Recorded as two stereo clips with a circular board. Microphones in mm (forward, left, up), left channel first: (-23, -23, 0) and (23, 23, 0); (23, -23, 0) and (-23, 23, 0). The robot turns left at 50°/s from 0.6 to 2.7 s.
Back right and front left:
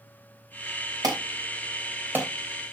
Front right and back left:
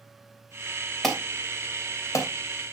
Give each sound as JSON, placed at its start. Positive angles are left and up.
{"t": 1.0, "sound": "an alarm", "azimuth_deg": 40, "distance_m": 3.0}